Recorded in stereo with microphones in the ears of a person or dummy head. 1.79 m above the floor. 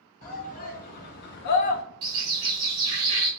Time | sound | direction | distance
0.2 | a shout | 45° left (ahead or behind) | 1.4 m
2.0 | a bird | 20° right (ahead or behind) | 1.0 m